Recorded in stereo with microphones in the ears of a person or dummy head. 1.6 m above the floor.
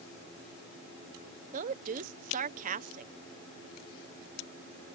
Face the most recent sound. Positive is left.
turn(degrees=-45)  # may be behind; listen again after turning